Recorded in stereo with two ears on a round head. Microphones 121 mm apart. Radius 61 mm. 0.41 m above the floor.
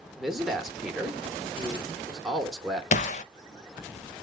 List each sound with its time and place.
0.2 s a man speaking: centre (ahead or behind), 0.8 m
2.9 s a gunshot: 55° left (ahead or behind), 0.6 m